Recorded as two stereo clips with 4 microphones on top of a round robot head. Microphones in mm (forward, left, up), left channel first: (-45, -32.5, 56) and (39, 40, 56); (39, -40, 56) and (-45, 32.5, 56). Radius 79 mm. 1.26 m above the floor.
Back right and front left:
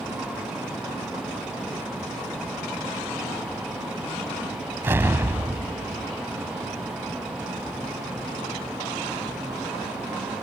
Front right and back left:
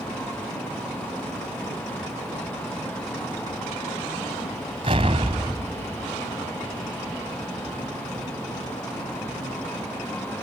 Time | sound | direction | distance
4.8 | an explosion | 105° left | ?